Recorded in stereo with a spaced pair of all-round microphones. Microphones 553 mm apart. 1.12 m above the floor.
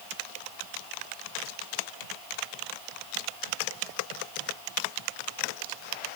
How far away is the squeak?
No squeak in this recording.